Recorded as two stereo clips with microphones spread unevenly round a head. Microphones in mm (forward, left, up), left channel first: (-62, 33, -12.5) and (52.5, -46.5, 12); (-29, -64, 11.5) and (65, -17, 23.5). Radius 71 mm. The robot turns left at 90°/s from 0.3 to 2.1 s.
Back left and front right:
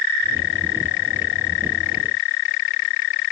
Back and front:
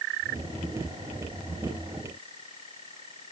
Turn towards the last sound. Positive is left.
No sound to turn to.